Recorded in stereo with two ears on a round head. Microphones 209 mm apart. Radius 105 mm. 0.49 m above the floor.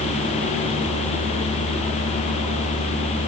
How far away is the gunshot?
I don't hear a gunshot.